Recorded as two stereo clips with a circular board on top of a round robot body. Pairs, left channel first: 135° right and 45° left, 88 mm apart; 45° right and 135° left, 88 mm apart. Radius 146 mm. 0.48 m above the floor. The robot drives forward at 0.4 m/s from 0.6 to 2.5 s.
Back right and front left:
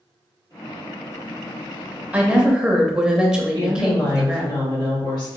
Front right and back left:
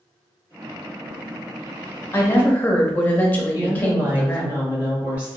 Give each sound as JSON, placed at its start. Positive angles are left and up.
{"t": 2.1, "sound": "a woman speaking", "azimuth_deg": -15, "distance_m": 0.8}
{"t": 3.5, "sound": "a woman speaking", "azimuth_deg": -155, "distance_m": 1.9}